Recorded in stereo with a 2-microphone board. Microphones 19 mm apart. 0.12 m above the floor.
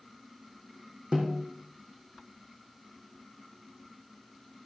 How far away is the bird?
No bird in this recording.